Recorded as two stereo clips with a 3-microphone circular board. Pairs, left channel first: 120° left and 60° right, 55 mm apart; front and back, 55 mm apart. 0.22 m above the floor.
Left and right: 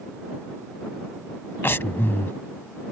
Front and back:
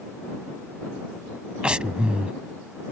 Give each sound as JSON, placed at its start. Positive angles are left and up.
{"t": 1.6, "sound": "breathing", "azimuth_deg": 115}